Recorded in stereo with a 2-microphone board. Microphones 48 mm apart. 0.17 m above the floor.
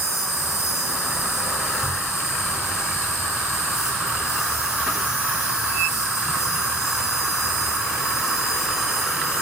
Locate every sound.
0.0 s an insect: 80° left, 7 m